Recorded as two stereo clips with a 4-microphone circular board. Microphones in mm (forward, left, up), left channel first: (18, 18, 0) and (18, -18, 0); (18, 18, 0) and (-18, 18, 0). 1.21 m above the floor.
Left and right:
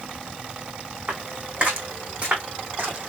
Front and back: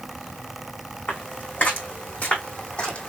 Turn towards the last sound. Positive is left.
turn(degrees=-50)